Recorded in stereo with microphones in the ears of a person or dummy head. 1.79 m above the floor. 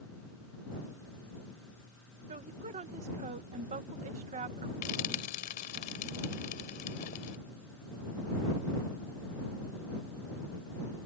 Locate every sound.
2.3 s a woman speaking: 35° right (ahead or behind)
4.8 s frying: 45° left (ahead or behind)